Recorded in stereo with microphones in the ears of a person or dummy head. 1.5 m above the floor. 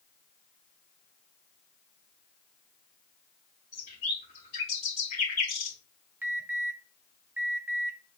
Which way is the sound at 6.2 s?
15° right (ahead or behind).